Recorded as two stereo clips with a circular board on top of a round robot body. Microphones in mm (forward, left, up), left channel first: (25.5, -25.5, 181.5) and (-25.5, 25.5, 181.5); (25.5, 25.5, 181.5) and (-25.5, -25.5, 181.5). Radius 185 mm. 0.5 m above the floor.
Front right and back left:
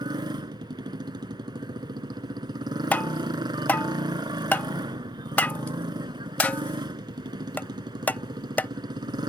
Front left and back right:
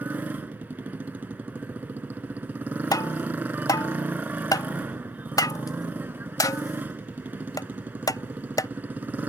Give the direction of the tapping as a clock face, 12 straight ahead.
11 o'clock.